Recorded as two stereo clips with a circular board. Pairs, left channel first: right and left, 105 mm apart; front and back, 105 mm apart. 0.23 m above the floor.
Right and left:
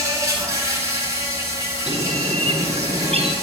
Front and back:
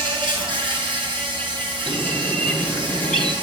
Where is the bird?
85° left, 1.6 m.